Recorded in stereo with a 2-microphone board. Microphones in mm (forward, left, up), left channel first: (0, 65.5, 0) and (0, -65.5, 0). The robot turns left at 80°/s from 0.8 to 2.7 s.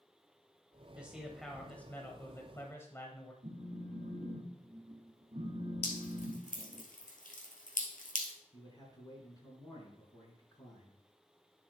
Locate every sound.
0.9 s a man speaking: 10° right (ahead or behind), 1.0 m; by 3.3 s 20° left (ahead or behind), 1.0 m
3.4 s a phone buzzing: 60° right (ahead or behind), 1.3 m
5.8 s dripping: 85° left, 1.7 m
8.5 s a man speaking: 30° left (ahead or behind), 4 m